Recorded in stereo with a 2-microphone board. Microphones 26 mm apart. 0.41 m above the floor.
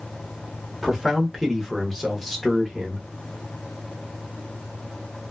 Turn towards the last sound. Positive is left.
turn(degrees=5)  # may be behind; listen again after turning